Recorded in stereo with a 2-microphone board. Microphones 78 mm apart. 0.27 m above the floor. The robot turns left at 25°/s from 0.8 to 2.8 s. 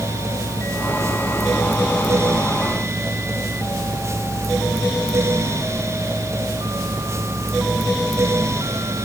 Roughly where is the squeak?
No squeak in this recording.